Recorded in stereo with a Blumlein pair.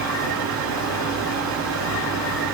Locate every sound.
0.0 s a fan: 35° right, 4 m